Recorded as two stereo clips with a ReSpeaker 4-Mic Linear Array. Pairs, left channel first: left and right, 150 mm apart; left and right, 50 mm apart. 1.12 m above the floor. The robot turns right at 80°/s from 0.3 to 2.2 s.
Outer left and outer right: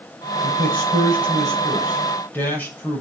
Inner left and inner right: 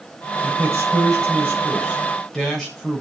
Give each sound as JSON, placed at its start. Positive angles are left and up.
{"t": 0.4, "sound": "a man speaking", "azimuth_deg": -130, "distance_m": 6.5}